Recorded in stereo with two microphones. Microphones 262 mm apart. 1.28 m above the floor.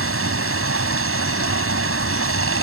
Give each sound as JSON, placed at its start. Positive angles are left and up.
{"t": 0.0, "sound": "running water", "side_deg": -55}